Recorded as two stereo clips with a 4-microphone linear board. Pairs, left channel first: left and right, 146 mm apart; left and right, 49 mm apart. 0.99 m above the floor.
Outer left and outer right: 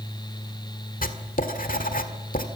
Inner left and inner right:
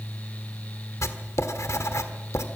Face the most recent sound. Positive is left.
turn(degrees=70)  # may be behind; listen again after turning